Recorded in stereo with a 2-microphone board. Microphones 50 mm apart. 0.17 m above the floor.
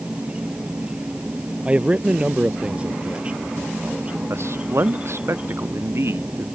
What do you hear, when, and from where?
0.0 s an insect: 25° right (ahead or behind)
1.6 s a man speaking: 25° right (ahead or behind)
4.3 s a man speaking: 60° right (ahead or behind)